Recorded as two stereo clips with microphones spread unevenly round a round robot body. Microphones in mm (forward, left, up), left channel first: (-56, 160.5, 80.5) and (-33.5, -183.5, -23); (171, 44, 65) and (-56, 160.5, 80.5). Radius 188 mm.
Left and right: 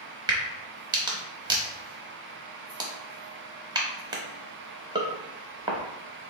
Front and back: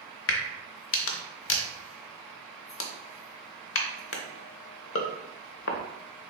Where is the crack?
25° right, 0.7 m.